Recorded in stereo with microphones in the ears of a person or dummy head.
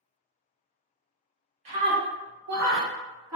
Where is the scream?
30° right (ahead or behind), 0.9 m; by 3.4 s 65° right (ahead or behind), 1.1 m.